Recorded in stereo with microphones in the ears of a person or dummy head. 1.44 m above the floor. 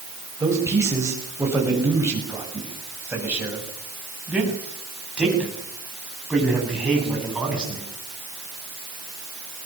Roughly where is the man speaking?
Centre.